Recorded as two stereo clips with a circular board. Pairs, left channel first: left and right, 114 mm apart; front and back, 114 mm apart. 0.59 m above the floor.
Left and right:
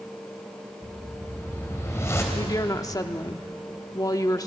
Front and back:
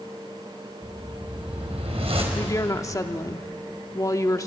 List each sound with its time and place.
0.8 s a whoosh: 155° left, 3.5 m
2.3 s a woman speaking: 50° left, 0.9 m